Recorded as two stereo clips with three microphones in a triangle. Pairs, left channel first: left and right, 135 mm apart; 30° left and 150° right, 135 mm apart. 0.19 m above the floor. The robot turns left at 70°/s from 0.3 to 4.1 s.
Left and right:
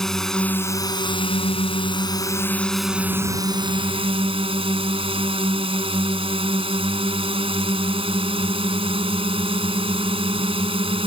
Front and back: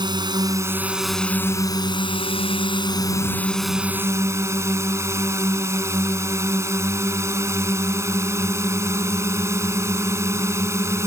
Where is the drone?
175° left; by 11.1 s 90° right.